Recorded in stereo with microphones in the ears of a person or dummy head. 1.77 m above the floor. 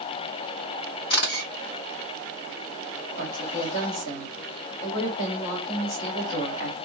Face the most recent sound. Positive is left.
turn(degrees=60)  # may be behind; listen again after turning